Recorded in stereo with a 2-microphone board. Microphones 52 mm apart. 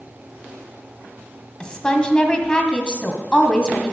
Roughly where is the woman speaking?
Centre.